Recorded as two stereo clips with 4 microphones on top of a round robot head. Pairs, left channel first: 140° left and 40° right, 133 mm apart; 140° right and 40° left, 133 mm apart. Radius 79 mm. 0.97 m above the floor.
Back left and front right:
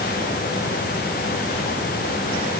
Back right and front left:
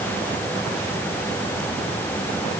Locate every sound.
Only background noise.